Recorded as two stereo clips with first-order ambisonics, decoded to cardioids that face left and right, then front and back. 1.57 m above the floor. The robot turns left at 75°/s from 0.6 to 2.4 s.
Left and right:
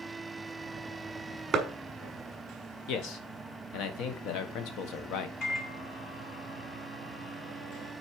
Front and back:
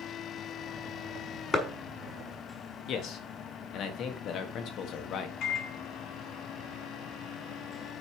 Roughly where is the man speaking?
Ahead left.